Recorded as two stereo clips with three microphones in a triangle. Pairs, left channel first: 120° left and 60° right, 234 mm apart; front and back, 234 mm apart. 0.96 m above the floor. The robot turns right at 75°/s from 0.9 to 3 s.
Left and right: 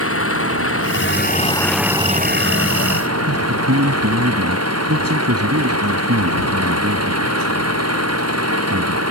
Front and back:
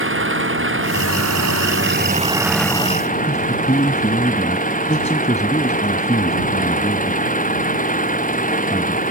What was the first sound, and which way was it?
An engine running, 145° left.